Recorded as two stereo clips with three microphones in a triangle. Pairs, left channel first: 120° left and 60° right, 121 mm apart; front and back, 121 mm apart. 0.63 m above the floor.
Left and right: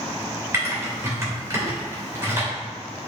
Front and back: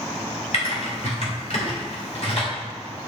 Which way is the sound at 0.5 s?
5° left.